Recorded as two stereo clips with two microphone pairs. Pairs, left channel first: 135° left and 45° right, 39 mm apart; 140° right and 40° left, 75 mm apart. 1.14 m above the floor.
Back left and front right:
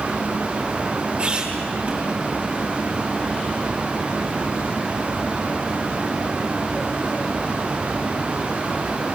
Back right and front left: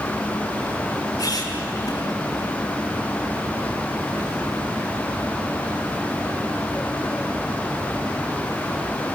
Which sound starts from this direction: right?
A squeak, at 1.2 s.